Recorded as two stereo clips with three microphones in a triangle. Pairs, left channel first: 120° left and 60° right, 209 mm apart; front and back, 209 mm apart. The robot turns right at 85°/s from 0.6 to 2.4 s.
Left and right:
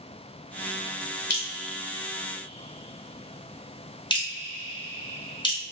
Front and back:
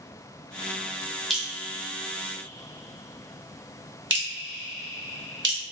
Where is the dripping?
90° left, 1.6 m; by 5.6 s 175° right, 1.6 m.